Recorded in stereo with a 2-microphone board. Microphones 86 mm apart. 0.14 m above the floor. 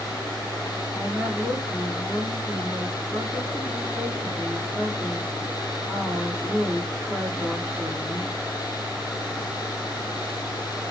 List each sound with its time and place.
0.9 s a woman speaking: 25° right (ahead or behind), 9.5 m